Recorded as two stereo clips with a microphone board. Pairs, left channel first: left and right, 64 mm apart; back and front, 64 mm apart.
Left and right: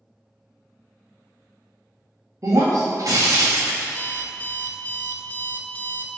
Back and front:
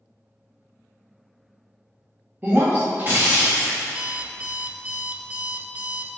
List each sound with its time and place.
2.4 s breaking glass: 60° right, 1.9 m
3.9 s an alarm clock: 50° left, 0.6 m